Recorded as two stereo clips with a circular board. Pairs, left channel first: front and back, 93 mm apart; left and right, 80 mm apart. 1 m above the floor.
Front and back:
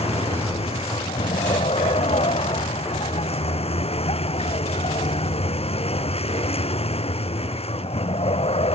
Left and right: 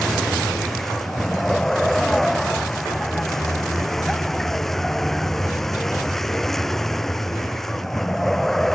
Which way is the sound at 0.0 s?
5° left.